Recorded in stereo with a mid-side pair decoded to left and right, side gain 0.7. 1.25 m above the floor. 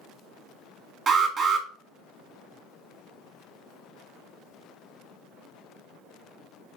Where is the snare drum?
I don't hear a snare drum.